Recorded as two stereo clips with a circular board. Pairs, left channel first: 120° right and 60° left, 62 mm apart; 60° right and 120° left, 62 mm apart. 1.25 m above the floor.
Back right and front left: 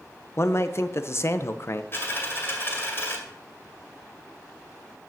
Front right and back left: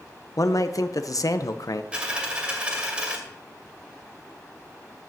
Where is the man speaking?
80° right, 0.7 m.